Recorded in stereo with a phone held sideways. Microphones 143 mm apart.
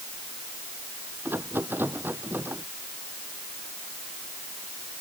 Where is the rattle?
15° right (ahead or behind).